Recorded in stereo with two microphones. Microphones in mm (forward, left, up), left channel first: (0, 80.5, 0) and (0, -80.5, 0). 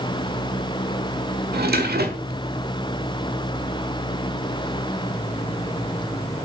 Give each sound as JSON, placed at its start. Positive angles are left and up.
{"t": 1.5, "sound": "a drawer", "side_deg": -80, "distance_m": 1.5}